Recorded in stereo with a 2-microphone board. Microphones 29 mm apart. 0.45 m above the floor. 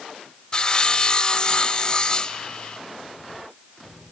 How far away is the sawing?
About 0.7 m.